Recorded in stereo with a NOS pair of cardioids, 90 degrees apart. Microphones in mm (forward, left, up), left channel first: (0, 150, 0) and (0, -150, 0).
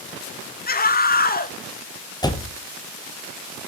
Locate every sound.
0.7 s a scream: 30° left, 1.9 m
2.2 s a door slam: 15° left, 1.5 m